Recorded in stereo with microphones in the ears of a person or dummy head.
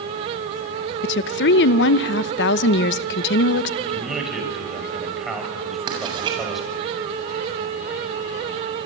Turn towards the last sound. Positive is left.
turn(degrees=-30)  # may be behind; listen again after turning